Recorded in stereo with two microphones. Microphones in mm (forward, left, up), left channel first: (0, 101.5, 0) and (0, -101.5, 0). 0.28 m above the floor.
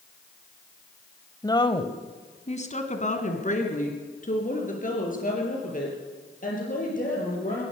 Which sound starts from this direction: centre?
A woman speaking, at 1.4 s.